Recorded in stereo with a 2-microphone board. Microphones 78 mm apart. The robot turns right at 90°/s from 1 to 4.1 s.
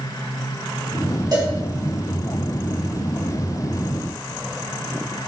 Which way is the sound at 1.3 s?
55° right (ahead or behind).